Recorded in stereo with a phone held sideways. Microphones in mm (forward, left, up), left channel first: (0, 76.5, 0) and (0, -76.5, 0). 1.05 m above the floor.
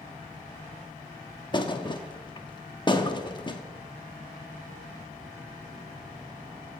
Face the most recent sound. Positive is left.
turn(degrees=30)  # may be behind; listen again after turning